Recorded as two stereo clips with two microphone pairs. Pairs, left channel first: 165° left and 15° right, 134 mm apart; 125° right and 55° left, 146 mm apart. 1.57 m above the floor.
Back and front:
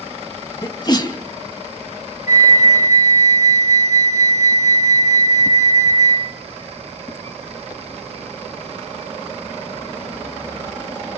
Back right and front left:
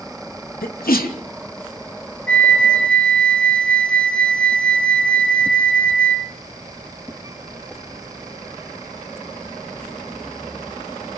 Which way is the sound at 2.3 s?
155° left.